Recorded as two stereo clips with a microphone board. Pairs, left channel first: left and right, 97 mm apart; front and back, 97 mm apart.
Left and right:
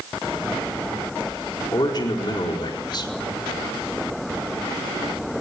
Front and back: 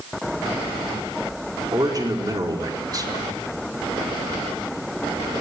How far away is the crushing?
No crushing in this recording.